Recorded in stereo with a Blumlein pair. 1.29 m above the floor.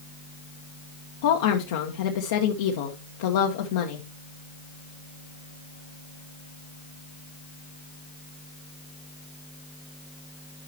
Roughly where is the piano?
No piano in this recording.